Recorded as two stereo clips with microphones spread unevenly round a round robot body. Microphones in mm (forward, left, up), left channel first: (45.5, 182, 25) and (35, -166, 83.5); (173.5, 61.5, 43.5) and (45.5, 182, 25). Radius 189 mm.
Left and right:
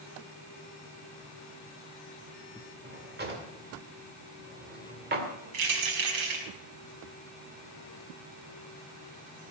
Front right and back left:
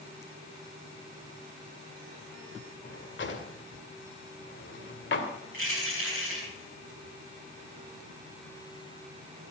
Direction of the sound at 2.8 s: 25° right.